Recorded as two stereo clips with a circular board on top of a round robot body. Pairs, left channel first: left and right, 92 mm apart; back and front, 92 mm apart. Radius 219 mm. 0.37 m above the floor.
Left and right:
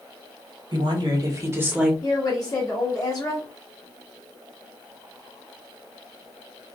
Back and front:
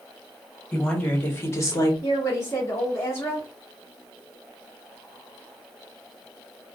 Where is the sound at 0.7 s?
100° right, 1.7 m; by 1.9 s 170° right, 1.3 m.